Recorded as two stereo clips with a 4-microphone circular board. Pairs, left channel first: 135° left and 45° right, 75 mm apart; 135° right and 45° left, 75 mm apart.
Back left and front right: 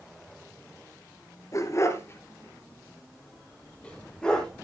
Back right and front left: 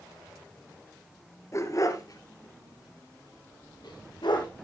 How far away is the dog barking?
About 1.7 m.